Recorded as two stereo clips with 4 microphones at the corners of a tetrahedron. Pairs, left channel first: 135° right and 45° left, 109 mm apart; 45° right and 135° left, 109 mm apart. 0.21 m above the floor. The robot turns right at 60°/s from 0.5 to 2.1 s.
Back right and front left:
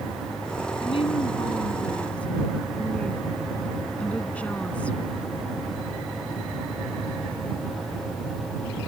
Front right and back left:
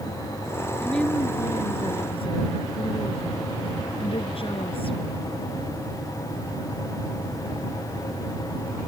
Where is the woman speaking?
135° right; by 5.2 s 60° right.